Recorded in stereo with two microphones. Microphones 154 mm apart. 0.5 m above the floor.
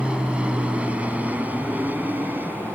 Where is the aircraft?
5° right (ahead or behind); by 2.8 s 15° right (ahead or behind).